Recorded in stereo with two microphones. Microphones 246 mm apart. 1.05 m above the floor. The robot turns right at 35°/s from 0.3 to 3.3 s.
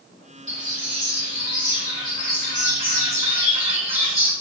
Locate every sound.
0.5 s a bird: 125° right, 4 m; by 4.3 s 25° right, 4 m